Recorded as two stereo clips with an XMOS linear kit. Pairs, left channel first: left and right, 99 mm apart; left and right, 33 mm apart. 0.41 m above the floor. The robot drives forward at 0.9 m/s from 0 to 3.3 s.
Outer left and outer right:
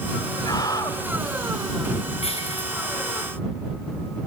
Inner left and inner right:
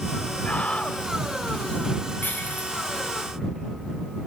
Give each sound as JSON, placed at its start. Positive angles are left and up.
{"t": 0.5, "sound": "a scream", "side_deg": 45, "distance_m": 2.0}
{"t": 2.2, "sound": "breaking glass", "side_deg": 85, "distance_m": 7.0}